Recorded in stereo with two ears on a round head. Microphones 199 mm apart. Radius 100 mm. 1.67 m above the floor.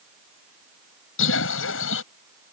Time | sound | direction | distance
1.2 | a bird | 65° left (ahead or behind) | ?